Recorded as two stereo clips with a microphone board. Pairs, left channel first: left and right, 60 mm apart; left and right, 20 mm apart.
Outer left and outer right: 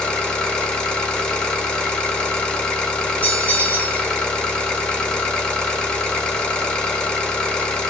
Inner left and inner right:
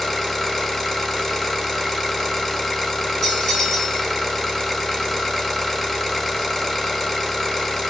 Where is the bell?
25° left (ahead or behind), 3 m.